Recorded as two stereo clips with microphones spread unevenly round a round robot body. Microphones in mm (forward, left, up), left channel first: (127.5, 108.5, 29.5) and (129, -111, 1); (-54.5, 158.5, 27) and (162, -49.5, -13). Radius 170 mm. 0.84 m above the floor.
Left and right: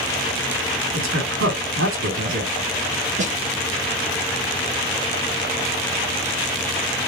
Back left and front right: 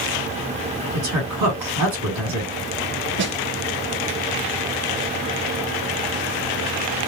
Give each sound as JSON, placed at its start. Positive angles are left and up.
{"t": 0.9, "sound": "a woman speaking", "azimuth_deg": -75, "distance_m": 2.0}
{"t": 3.2, "sound": "a snare drum", "azimuth_deg": -60, "distance_m": 0.6}